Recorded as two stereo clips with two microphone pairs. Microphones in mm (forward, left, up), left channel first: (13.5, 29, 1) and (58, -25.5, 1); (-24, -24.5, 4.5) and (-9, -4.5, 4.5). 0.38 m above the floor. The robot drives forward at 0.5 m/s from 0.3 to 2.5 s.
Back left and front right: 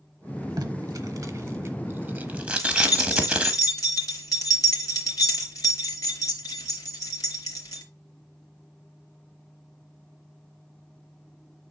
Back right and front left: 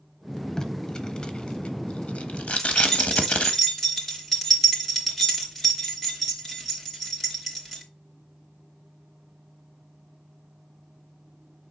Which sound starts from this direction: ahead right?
Tape being pulled, at 0.6 s.